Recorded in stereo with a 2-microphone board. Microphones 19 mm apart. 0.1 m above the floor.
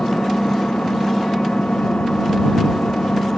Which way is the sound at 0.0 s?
75° left (ahead or behind).